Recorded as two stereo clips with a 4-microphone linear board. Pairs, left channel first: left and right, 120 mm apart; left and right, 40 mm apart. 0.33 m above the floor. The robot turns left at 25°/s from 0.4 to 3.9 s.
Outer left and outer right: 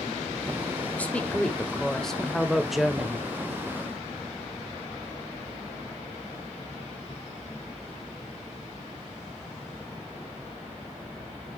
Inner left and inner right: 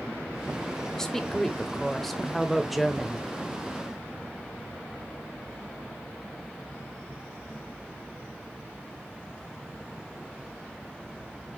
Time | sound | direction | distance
0.9 | a woman speaking | 10° left (ahead or behind) | 1.1 m